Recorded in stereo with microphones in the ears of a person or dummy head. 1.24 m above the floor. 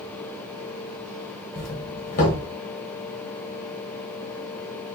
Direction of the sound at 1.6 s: 45° left (ahead or behind).